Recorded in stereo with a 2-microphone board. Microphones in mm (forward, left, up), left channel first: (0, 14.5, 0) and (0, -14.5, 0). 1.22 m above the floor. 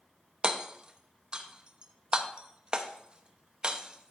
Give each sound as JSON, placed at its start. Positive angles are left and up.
{"t": 0.4, "sound": "hammering", "side_deg": -30, "distance_m": 0.8}